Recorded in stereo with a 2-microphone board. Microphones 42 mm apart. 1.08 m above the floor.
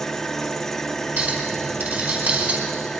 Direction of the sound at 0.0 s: 10° left (ahead or behind).